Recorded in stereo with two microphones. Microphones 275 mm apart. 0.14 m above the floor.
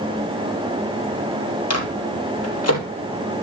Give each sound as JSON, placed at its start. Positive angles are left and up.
{"t": 1.7, "sound": "a microwave", "side_deg": 70, "distance_m": 4.0}